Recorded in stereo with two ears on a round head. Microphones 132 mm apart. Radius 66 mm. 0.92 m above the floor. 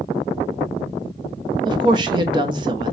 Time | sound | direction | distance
1.6 | a woman speaking | 30° right (ahead or behind) | 0.9 m